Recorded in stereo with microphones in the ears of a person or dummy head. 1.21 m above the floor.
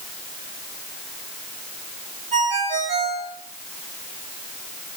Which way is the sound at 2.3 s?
30° right (ahead or behind).